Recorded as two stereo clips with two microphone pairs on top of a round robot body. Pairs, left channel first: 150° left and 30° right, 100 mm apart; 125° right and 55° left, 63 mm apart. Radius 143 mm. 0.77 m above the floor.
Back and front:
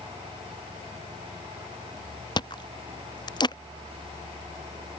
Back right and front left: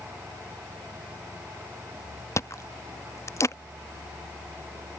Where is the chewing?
170° right.